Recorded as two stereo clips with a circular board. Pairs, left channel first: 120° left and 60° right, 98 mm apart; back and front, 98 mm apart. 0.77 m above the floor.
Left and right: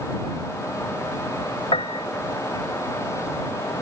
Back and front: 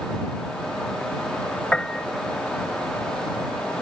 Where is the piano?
100° left.